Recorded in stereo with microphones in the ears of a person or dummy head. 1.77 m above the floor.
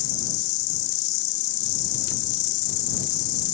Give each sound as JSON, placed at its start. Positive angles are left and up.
{"t": 0.0, "sound": "an insect", "side_deg": 60}